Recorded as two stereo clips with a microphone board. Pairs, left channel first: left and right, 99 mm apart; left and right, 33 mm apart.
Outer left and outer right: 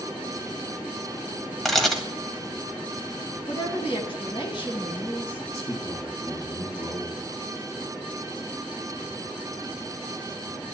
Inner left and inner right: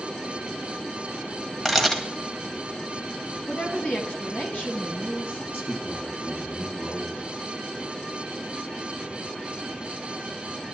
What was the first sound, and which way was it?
A camera shutter, centre (ahead or behind).